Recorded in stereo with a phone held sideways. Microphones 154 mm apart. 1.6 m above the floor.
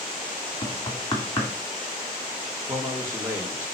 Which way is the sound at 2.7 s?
15° right (ahead or behind).